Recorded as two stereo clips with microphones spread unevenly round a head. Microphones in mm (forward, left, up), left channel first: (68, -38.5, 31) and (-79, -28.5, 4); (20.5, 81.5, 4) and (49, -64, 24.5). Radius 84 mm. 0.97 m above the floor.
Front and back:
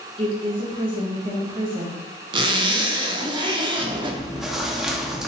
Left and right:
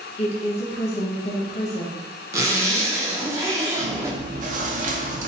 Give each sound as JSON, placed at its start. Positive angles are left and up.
{"t": 0.2, "sound": "a woman speaking", "azimuth_deg": 130, "distance_m": 1.1}
{"t": 2.3, "sound": "a zipper", "azimuth_deg": -130, "distance_m": 0.5}
{"t": 3.8, "sound": "chewing", "azimuth_deg": -90, "distance_m": 0.5}